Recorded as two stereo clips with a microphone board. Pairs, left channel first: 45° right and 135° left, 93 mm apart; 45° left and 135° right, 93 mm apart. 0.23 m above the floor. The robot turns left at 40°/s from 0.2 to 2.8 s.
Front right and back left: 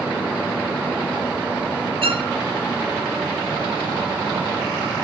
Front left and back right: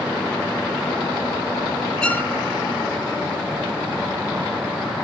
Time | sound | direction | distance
2.0 | a violin | 125° left | 0.9 m